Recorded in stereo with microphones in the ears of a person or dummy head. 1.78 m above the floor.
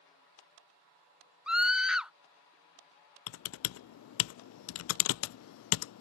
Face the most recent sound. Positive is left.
turn(degrees=75)  # may be behind; listen again after turning